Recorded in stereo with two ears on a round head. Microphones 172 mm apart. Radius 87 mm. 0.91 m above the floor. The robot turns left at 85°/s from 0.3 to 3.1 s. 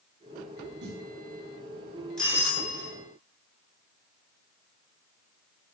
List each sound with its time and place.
0.8 s a snare drum: 60° right (ahead or behind), 4.5 m; by 1.1 s 80° right, 4.5 m
2.2 s a doorbell: 175° left, 9 m; by 2.9 s 115° left, 9 m